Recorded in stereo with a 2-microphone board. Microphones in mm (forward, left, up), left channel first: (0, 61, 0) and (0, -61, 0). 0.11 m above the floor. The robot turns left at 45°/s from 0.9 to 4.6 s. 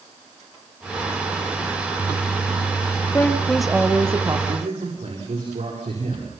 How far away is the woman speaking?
About 2.5 m.